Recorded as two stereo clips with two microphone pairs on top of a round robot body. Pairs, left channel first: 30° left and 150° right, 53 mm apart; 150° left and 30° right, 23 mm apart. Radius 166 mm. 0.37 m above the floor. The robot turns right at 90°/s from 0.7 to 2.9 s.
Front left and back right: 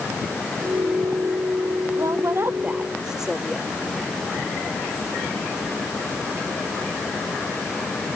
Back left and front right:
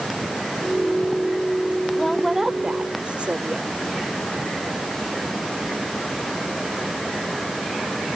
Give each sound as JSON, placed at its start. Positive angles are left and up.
{"t": 2.0, "sound": "a woman speaking", "azimuth_deg": -150}